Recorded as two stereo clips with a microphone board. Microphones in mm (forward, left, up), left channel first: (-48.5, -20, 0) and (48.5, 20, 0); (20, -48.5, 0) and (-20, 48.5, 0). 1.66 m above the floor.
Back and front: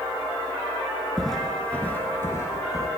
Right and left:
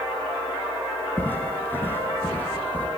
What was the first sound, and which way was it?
Footsteps, 70° right.